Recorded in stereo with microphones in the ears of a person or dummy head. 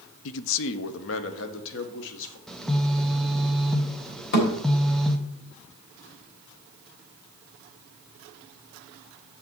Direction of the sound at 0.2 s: 65° left (ahead or behind).